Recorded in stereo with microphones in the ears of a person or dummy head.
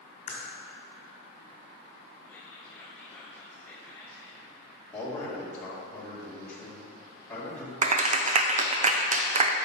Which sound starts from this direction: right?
A clap, at 7.8 s.